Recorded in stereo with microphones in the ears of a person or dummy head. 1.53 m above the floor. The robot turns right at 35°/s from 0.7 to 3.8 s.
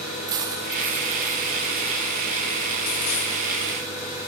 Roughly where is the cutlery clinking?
Right.